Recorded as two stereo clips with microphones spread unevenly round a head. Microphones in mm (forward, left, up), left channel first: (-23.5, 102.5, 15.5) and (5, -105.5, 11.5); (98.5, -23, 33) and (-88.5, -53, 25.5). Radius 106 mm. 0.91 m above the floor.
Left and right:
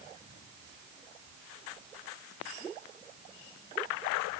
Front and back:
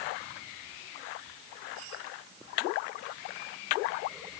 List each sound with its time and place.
Only background noise.